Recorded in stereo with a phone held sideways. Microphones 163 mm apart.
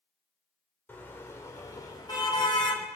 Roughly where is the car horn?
Centre.